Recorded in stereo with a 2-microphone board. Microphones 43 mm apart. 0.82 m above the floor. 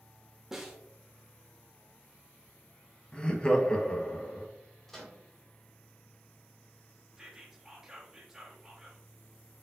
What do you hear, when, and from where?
0.5 s a snare drum: 10° right (ahead or behind), 1.0 m
3.1 s laughter: 20° left (ahead or behind), 0.9 m
4.9 s a microwave: 10° left (ahead or behind), 1.8 m
7.2 s whispering: 10° right (ahead or behind), 1.4 m